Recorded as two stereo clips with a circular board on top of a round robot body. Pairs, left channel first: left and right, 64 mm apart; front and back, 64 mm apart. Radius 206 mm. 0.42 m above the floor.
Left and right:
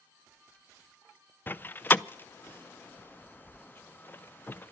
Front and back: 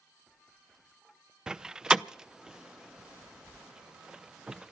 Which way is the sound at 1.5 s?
110° left.